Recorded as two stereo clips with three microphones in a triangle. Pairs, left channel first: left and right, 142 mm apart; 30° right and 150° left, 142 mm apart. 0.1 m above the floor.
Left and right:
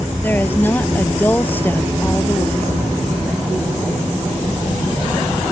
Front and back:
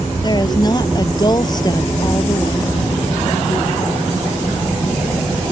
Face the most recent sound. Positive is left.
turn(degrees=20)